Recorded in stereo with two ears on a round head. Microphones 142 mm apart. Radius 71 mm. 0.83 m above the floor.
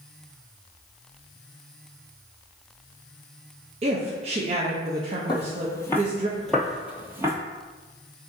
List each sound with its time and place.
3.8 s a woman speaking: 40° right (ahead or behind), 0.6 m
5.3 s footsteps: 30° left (ahead or behind), 1.0 m; by 7.3 s 20° right (ahead or behind), 0.9 m